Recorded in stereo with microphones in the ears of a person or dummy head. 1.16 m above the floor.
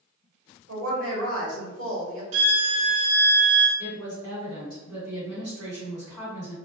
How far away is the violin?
About 0.6 m.